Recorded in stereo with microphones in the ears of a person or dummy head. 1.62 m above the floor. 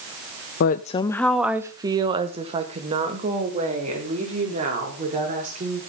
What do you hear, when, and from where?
0.6 s a woman speaking: 55° left (ahead or behind), 0.6 m; by 5.8 s 35° right (ahead or behind), 4.5 m